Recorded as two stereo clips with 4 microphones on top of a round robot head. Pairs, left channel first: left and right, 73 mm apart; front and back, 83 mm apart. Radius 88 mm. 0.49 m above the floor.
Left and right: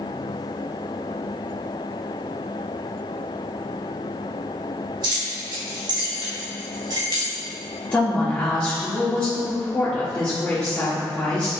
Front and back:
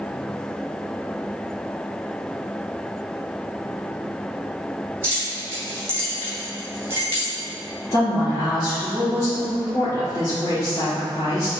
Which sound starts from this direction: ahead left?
A woman speaking, at 7.9 s.